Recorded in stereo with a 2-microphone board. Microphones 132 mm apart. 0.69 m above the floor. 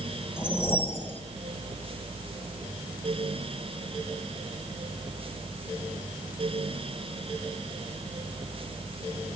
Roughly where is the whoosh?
Centre.